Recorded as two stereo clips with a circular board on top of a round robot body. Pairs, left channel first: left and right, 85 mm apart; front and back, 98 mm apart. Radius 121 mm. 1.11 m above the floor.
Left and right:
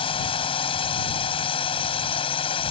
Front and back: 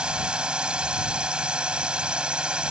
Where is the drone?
100° left.